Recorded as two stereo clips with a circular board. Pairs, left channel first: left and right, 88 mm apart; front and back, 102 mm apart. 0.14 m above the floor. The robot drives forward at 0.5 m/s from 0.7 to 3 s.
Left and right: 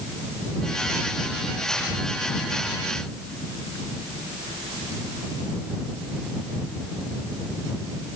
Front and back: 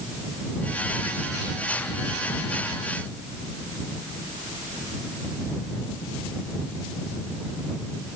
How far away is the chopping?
No chopping in this recording.